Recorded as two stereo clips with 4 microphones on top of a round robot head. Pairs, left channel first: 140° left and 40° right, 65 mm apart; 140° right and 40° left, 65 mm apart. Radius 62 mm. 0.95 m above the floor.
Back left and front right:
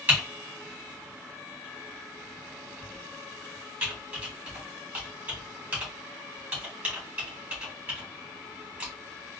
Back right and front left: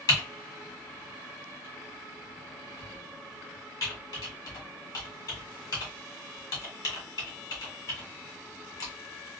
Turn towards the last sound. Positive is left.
turn(degrees=-105)